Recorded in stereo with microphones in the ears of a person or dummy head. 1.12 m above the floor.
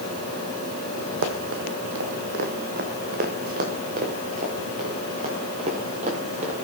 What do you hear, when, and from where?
1.2 s running footsteps: 60° right (ahead or behind), 2.5 m; by 6.5 s 40° right (ahead or behind), 7 m